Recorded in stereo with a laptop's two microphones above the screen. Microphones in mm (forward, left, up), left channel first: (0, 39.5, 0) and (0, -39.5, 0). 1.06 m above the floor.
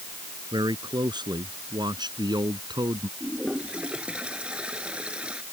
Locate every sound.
0.5 s a man speaking: 65° right (ahead or behind)
3.2 s a toilet flushing: 15° right (ahead or behind)